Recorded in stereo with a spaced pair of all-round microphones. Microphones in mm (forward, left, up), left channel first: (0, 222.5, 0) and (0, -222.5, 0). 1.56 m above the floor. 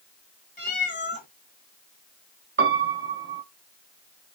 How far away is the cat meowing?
About 1.4 m.